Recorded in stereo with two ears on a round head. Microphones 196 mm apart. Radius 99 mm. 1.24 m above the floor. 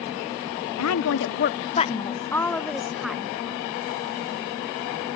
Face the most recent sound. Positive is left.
turn(degrees=-5)  # may be behind; listen again after turning